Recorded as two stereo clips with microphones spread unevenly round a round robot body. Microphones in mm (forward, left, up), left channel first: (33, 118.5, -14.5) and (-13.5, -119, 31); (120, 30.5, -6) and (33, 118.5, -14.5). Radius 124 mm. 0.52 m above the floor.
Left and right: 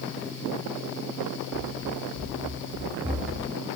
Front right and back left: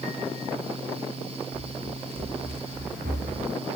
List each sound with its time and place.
1.5 s running footsteps: 175° right, 5.5 m; by 3.5 s 170° left, 5 m